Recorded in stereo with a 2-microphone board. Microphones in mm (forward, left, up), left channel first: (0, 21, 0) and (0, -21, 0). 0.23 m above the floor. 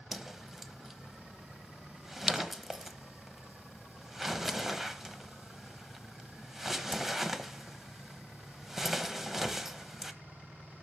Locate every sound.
0.1 s a whoosh: 5° right (ahead or behind), 0.9 m